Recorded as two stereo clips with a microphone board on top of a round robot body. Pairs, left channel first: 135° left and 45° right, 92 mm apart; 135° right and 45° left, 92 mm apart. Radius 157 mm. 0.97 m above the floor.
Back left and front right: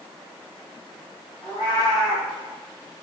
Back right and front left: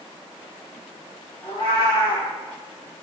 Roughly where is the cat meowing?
Behind.